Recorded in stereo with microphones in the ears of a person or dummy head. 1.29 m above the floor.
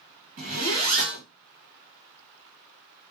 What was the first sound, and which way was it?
A zipper, 50° right (ahead or behind).